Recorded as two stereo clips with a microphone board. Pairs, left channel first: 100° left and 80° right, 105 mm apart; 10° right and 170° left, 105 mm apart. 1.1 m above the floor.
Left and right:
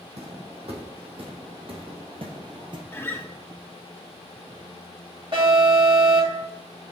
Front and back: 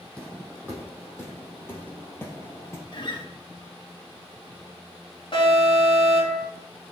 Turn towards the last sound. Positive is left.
turn(degrees=-45)